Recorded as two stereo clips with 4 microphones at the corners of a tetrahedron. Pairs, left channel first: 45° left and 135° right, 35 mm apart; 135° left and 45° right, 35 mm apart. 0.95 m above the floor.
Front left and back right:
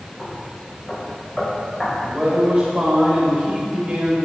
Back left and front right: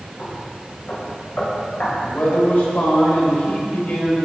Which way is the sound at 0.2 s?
115° left.